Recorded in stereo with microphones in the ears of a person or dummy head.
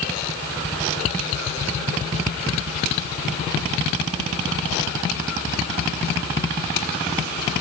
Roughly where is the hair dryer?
No hair dryer in this recording.